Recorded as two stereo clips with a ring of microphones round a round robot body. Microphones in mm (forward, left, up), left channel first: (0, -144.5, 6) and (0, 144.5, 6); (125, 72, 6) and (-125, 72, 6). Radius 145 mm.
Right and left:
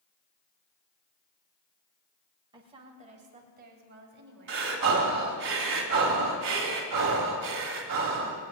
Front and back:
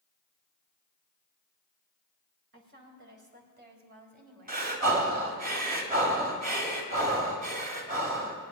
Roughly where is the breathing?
Behind left.